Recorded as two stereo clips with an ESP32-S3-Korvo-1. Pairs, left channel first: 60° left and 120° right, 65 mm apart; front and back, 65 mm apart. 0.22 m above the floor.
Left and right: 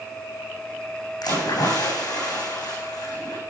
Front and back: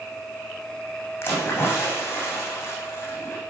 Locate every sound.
1.2 s a splash: 50° left, 8.5 m